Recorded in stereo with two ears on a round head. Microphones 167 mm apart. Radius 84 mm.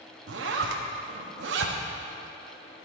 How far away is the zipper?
About 0.7 m.